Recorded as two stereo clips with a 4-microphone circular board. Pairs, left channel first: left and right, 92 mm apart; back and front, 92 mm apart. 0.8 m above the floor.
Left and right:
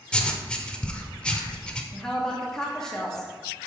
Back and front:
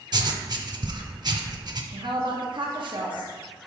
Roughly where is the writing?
Ahead.